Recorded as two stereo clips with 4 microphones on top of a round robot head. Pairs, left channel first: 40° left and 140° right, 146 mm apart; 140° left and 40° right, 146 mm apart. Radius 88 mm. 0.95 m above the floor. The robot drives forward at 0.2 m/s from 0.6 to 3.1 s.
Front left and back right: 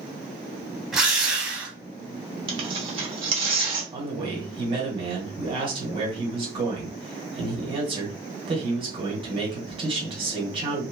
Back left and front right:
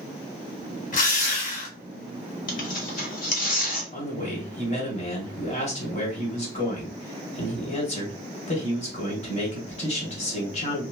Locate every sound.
0.9 s a drill: 135° left, 1.3 m; by 1.8 s 140° left, 1.4 m
2.5 s tearing paper: 170° left, 1.2 m
3.9 s a man speaking: 175° left, 1.6 m